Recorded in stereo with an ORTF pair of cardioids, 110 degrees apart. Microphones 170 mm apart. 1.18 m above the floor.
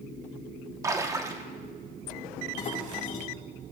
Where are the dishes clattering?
45° left, 5 m.